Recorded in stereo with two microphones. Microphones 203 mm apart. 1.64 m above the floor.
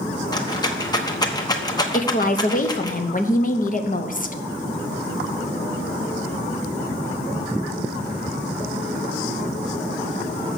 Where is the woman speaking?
40° left (ahead or behind), 0.9 m.